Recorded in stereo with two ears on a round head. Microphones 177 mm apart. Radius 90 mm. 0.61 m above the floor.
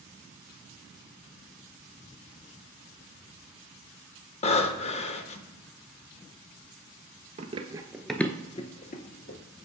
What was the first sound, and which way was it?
Breathing, 35° left (ahead or behind).